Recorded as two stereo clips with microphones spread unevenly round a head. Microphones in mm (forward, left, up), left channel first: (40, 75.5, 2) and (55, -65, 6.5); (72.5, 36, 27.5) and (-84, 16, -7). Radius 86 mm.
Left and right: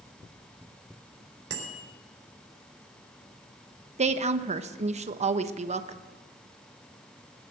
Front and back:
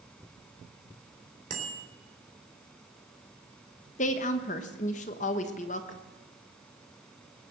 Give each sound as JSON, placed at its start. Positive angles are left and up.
{"t": 1.5, "sound": "a bicycle bell", "azimuth_deg": -120, "distance_m": 3.5}
{"t": 4.0, "sound": "a woman speaking", "azimuth_deg": -40, "distance_m": 1.1}